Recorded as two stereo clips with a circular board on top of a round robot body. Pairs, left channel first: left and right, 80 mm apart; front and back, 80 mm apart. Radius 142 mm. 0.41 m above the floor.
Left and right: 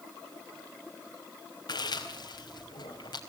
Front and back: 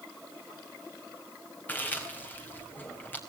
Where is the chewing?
65° left, 4 m.